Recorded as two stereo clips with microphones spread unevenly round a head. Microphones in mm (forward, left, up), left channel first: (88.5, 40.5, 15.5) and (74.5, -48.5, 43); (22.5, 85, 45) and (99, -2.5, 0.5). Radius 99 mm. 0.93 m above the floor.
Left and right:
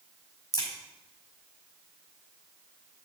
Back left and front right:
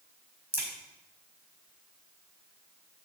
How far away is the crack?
About 5 m.